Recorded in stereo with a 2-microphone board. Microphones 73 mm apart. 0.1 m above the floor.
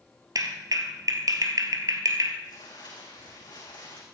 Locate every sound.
0.3 s a clap: 55° right (ahead or behind), 1.9 m
2.4 s crumpling: 75° left (ahead or behind), 7 m